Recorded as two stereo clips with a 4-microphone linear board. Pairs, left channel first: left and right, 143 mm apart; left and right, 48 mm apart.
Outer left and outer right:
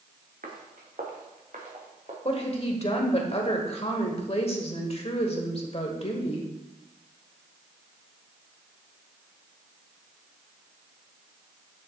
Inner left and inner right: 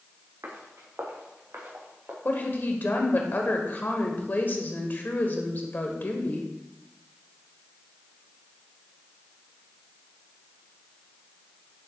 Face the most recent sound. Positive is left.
turn(degrees=45)  # may be behind; listen again after turning